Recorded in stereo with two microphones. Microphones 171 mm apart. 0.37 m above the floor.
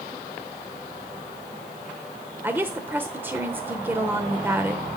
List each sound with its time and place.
2.4 s a woman speaking: 10° right (ahead or behind), 0.8 m